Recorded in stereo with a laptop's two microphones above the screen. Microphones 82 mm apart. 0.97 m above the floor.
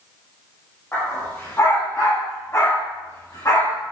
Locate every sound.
0.9 s a dog barking: 25° left (ahead or behind), 8.5 m; by 3.8 s 40° left (ahead or behind), 10 m